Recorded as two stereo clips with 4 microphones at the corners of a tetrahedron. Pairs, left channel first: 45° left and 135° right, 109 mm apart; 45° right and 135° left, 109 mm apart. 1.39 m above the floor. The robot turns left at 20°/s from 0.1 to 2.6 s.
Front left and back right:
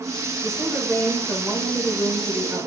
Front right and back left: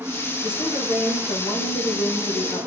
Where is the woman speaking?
10° right, 1.3 m; by 2.7 s 55° right, 1.3 m.